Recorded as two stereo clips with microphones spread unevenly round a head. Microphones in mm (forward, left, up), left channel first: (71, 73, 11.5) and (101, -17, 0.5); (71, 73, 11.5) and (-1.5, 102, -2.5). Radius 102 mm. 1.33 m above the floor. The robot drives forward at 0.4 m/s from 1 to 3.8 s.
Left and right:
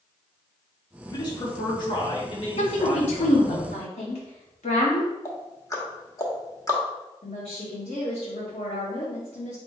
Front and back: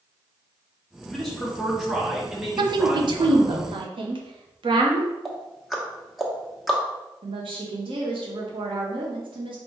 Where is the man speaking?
65° left, 1.9 m; by 3.6 s 95° left, 1.7 m.